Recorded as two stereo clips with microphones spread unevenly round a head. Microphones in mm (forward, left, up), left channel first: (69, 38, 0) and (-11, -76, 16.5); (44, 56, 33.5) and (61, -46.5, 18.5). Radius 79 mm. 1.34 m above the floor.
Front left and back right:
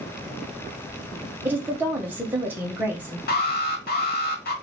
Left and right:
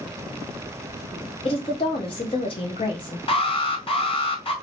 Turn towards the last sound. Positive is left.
turn(degrees=60)